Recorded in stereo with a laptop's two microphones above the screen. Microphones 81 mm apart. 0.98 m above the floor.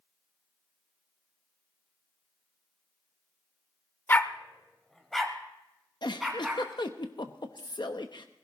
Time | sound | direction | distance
4.1 | a dog barking | 25° left (ahead or behind) | 0.6 m
6.0 | a giggle | 65° left (ahead or behind) | 0.9 m